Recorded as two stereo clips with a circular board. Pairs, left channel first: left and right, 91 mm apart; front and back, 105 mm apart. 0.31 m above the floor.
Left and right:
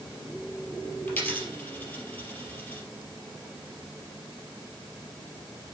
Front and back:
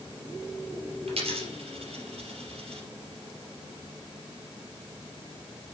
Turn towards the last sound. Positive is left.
turn(degrees=160)